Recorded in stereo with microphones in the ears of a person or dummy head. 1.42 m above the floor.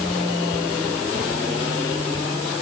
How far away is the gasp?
I don't hear a gasp.